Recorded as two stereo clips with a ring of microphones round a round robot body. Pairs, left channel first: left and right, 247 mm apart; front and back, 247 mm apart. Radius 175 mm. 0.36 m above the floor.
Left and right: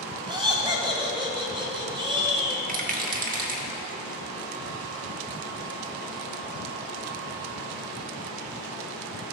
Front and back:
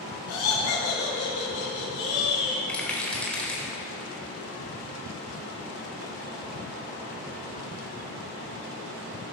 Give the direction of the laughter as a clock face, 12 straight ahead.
1 o'clock.